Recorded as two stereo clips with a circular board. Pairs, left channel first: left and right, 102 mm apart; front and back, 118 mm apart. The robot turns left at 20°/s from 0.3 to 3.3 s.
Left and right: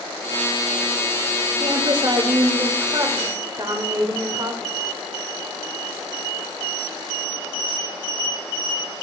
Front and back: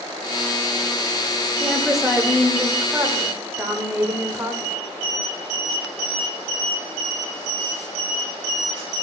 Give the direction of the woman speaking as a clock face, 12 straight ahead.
3 o'clock.